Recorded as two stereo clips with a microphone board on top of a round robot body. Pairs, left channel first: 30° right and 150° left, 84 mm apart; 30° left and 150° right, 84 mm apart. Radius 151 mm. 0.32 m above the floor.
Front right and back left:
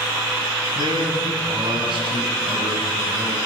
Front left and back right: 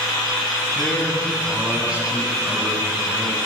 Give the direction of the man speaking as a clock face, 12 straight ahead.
8 o'clock.